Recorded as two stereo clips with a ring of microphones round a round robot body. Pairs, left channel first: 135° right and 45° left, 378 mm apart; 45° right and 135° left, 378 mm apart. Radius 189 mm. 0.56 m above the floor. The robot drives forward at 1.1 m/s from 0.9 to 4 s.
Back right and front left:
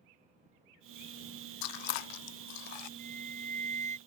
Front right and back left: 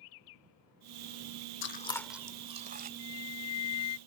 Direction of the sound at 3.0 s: 25° right.